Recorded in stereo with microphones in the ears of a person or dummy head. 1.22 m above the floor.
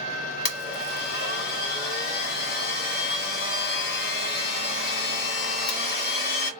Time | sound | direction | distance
0.5 | a blender | 65° left (ahead or behind) | 1.3 m